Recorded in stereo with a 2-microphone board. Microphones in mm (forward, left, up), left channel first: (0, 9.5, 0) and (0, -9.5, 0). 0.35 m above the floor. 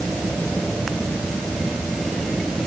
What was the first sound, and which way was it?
Only background noise.